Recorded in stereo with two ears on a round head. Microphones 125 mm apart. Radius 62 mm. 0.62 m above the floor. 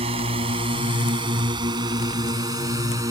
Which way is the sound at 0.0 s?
45° right (ahead or behind).